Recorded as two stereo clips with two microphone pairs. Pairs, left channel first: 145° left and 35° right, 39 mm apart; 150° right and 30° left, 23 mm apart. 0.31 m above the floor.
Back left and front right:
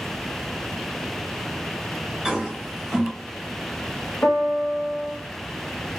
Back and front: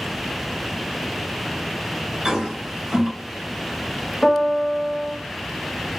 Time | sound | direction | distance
2.2 | a toilet flushing | 25° left | 1.5 m
4.2 | a piano | 140° left | 1.6 m